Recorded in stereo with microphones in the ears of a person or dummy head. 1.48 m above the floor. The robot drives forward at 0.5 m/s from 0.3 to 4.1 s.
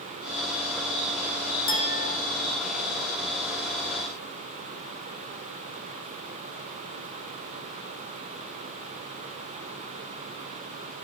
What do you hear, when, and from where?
1.7 s a clink: 70° left (ahead or behind), 4 m